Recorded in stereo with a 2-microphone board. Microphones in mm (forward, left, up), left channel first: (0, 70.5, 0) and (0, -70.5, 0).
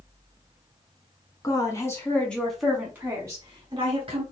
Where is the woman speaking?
25° left (ahead or behind), 1.5 m; by 4.2 s 40° right (ahead or behind), 1.6 m.